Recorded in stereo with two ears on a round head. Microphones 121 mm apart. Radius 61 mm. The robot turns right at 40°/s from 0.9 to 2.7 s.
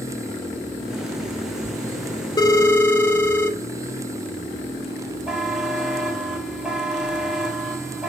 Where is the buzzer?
5° right (ahead or behind), 2 m.